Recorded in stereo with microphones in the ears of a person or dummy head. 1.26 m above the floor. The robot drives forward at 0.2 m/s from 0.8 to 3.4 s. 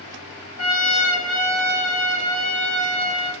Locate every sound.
0.6 s a trumpet: 80° right, 1.1 m; by 3.3 s 60° right (ahead or behind), 1.3 m